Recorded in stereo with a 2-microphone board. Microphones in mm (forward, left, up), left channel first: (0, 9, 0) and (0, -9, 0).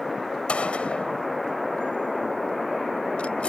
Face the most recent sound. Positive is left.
turn(degrees=85)